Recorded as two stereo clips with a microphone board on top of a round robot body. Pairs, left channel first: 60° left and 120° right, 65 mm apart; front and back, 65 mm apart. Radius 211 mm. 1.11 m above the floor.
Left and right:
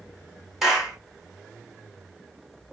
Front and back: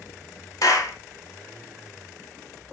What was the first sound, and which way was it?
A clap, 35° right.